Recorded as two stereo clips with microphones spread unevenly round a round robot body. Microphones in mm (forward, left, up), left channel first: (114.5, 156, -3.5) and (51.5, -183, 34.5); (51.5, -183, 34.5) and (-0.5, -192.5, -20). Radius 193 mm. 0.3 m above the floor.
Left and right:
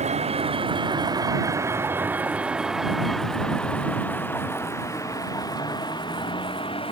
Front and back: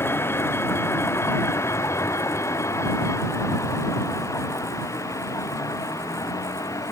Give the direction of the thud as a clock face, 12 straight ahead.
I don't hear a thud.